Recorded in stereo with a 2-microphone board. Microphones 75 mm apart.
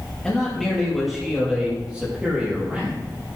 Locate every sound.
0.2 s a man speaking: 10° left (ahead or behind), 5.5 m; by 3.0 s 20° right (ahead or behind), 6.5 m